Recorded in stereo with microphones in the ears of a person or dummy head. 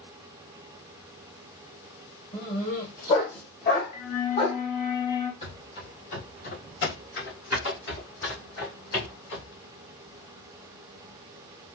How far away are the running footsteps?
About 2.0 m.